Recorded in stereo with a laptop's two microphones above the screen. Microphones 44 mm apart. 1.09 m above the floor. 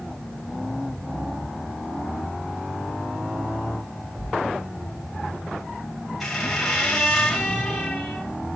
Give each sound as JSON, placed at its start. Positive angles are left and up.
{"t": 4.1, "sound": "a thud", "side_deg": -35, "distance_m": 5.5}
{"t": 6.2, "sound": "a squeak", "side_deg": 0, "distance_m": 1.9}